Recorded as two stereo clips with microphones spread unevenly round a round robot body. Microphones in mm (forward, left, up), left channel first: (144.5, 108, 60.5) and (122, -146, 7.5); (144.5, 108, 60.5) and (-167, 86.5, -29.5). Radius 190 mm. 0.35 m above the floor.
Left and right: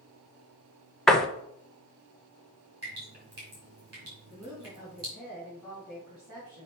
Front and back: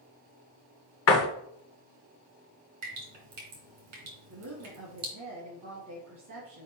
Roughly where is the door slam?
Ahead.